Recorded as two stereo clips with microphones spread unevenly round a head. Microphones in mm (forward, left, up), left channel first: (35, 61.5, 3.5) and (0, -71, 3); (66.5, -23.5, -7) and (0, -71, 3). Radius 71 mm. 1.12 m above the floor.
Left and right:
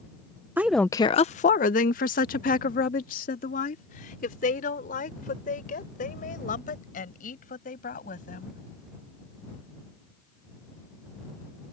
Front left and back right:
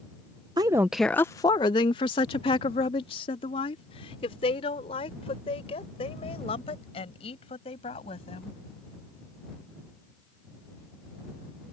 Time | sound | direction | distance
0.6 | a woman speaking | 175° right | ?